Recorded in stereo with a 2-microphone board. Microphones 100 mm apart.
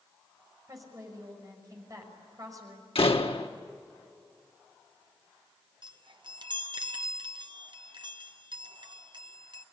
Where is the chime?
50° right (ahead or behind), 1.1 m.